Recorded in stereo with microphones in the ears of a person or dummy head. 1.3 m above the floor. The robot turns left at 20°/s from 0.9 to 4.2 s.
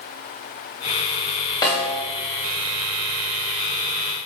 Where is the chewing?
I don't hear chewing.